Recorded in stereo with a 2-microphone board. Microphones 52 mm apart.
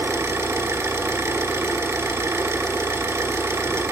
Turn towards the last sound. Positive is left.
turn(degrees=-60)  # may be behind; listen again after turning